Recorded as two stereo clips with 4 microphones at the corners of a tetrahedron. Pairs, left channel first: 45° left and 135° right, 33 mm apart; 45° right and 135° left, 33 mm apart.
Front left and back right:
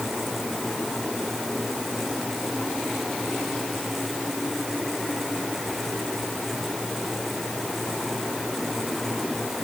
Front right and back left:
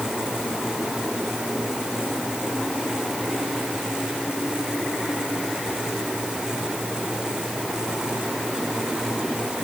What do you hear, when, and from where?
Only background noise.